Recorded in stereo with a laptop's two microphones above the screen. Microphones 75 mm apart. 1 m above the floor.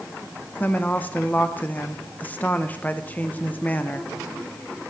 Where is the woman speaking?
20° left (ahead or behind), 0.6 m.